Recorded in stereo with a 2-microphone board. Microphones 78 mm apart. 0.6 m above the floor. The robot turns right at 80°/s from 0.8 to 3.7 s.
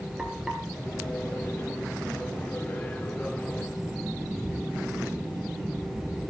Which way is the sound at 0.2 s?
5° right (ahead or behind).